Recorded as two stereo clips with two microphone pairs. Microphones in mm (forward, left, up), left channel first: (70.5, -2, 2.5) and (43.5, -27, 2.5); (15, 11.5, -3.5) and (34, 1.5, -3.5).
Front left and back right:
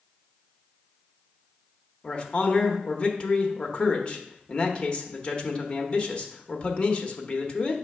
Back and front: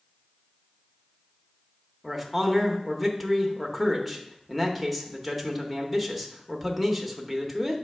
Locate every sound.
2.0 s a man speaking: 65° left, 1.0 m